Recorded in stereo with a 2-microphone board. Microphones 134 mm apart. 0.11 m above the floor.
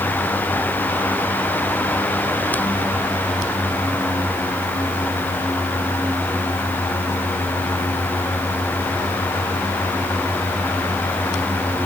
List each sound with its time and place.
Only background noise.